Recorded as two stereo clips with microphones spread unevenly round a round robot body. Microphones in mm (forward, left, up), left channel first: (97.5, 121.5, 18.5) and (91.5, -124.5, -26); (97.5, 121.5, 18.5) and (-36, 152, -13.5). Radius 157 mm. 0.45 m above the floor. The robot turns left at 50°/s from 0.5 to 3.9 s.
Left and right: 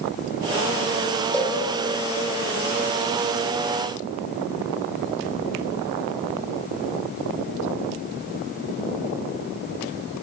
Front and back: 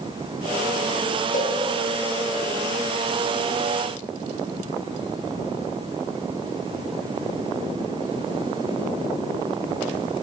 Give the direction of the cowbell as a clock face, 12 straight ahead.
12 o'clock.